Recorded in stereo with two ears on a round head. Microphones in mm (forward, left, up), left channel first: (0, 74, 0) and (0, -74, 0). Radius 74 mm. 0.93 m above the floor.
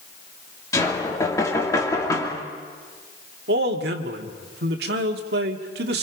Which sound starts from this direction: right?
A man speaking, at 3.5 s.